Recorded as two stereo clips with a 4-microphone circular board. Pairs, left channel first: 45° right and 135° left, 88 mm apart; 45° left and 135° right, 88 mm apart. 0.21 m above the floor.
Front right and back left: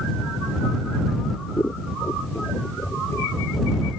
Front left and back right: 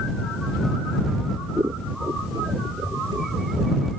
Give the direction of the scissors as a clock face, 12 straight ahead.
3 o'clock.